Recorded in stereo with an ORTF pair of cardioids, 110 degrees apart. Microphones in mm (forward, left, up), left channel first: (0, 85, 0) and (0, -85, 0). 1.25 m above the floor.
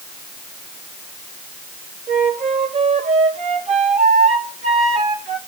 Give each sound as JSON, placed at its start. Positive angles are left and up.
{"t": 2.1, "sound": "a flute", "azimuth_deg": -45, "distance_m": 2.5}